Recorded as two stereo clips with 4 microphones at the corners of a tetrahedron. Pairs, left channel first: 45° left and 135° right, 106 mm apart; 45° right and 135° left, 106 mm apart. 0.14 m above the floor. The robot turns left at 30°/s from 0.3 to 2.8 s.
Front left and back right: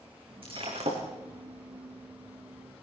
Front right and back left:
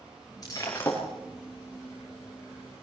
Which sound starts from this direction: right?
Breaking glass, at 0.4 s.